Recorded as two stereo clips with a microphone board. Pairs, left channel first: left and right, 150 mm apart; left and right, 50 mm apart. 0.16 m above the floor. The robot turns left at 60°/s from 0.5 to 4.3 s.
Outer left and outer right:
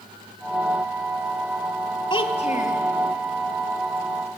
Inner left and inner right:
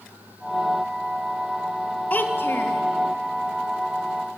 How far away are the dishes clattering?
No dishes clattering in this recording.